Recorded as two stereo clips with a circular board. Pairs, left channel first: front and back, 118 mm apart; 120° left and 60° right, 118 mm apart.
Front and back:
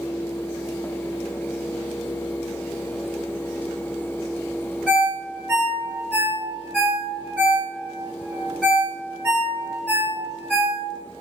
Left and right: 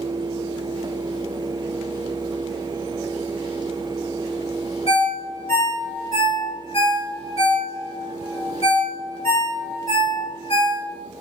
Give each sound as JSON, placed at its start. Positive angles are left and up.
{"t": 4.9, "sound": "a ringtone", "azimuth_deg": 80, "distance_m": 1.9}